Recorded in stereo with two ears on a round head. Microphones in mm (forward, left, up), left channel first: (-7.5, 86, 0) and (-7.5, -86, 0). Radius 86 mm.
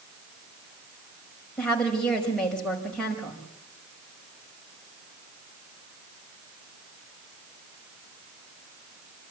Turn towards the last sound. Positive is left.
turn(degrees=5)  # may be behind; listen again after turning